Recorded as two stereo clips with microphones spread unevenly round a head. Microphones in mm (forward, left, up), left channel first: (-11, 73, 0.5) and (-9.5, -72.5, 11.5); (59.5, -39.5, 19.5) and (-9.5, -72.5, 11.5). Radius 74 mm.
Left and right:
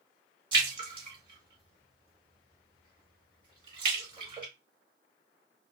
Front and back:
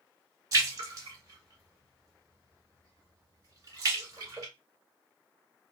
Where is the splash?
125° right, 1.8 m.